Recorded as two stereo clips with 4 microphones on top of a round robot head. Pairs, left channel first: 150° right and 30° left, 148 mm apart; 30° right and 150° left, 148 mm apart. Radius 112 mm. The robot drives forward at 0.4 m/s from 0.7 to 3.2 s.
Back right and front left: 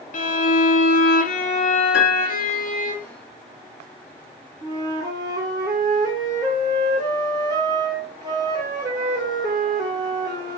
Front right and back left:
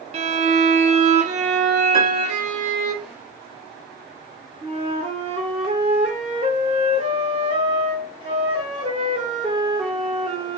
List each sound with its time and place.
0.1 s a violin: 175° right, 0.6 m; by 2.9 s straight behind, 1.4 m
1.9 s a piano: 145° right, 1.1 m; by 2.5 s 150° right, 1.3 m
4.6 s a flute: 95° left, 0.6 m